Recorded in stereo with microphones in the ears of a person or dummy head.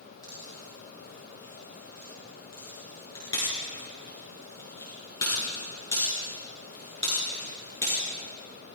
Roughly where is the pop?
Left.